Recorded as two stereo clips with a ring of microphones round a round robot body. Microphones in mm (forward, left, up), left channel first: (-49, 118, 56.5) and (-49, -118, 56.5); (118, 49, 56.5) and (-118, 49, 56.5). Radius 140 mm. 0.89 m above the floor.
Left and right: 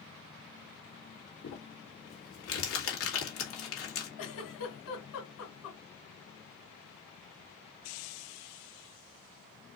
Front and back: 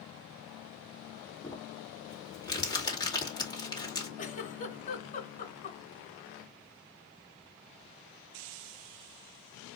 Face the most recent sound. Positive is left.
turn(degrees=55)